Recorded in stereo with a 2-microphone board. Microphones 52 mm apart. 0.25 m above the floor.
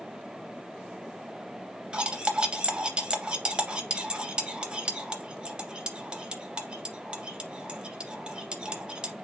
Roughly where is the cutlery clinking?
Right.